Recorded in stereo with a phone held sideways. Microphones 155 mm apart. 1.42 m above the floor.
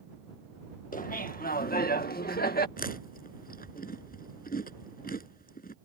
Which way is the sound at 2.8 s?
70° left (ahead or behind).